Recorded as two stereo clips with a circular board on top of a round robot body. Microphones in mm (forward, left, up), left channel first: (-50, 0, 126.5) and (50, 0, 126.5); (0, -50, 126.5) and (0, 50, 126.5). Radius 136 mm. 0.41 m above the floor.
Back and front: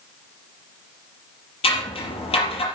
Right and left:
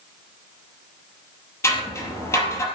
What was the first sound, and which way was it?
Scissors, 155° right.